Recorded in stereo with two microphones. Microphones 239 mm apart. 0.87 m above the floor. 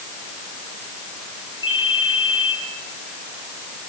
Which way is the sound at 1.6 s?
60° left (ahead or behind).